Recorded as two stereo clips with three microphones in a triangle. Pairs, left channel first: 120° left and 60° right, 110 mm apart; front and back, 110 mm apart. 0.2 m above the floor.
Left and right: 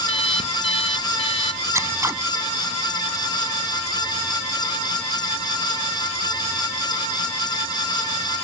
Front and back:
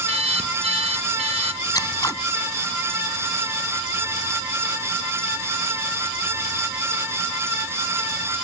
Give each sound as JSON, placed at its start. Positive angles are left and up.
{"t": 0.1, "sound": "an alarm clock", "azimuth_deg": 150}
{"t": 1.7, "sound": "scissors", "azimuth_deg": -20}